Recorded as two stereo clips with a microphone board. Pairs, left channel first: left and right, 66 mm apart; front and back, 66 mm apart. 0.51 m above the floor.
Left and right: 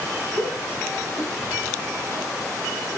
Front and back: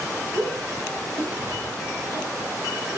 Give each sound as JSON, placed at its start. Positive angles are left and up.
{"t": 0.3, "sound": "a shout", "azimuth_deg": 70, "distance_m": 9.5}